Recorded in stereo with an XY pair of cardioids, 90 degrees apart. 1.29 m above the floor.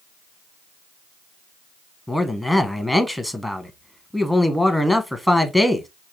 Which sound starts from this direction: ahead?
A man speaking, at 2.1 s.